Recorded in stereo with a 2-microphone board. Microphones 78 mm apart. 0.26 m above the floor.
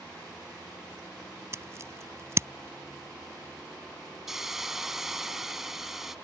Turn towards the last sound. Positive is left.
turn(degrees=-5)  # may be behind; listen again after turning